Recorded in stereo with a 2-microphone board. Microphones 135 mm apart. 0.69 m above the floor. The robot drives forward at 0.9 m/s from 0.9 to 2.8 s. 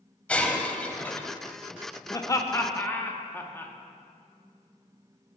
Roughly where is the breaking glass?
Centre.